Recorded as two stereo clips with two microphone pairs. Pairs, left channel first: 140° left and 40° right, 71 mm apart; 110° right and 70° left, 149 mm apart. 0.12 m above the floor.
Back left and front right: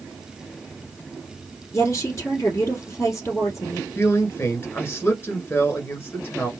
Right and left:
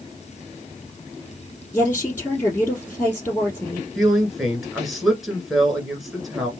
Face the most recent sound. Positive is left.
turn(degrees=155)